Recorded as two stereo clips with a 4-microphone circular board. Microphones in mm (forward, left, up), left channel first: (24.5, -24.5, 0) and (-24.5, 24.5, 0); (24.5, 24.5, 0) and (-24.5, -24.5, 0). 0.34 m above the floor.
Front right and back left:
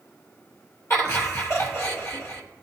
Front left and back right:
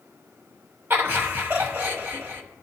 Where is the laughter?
80° right, 2.5 m.